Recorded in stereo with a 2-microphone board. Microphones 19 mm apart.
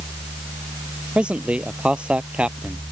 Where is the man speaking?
75° right (ahead or behind); by 2.8 s 80° right.